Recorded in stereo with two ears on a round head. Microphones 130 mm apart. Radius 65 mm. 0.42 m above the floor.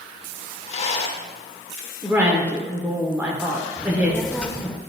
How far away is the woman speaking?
About 1.0 m.